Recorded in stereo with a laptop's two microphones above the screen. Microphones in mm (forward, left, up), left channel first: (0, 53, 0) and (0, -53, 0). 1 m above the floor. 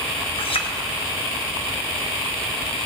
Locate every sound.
0.4 s a clink: 65° left (ahead or behind), 4 m